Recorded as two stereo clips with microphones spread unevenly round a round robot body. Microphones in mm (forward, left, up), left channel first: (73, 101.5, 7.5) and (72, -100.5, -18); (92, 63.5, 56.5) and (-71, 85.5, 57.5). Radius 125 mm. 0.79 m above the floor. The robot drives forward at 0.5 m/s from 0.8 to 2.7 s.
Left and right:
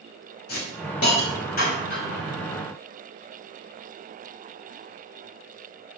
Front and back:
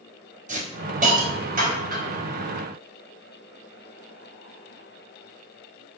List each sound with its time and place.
0.5 s a hiss: 130° left, 4.5 m; by 2.2 s 140° left, 5 m